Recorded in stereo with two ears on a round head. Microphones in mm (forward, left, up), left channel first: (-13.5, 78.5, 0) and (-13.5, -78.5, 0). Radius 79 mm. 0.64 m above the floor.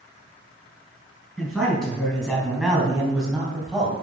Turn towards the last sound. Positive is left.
turn(degrees=0)  # may be behind; listen again after turning